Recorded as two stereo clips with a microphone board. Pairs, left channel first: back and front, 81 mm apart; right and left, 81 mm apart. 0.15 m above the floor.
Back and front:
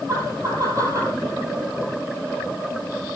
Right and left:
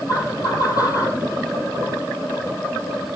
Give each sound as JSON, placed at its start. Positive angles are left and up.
{"t": 0.1, "sound": "laughter", "azimuth_deg": -45, "distance_m": 5.5}